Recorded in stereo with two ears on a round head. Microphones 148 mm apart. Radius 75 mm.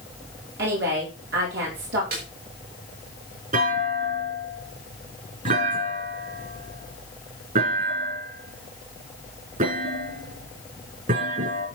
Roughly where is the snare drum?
Right.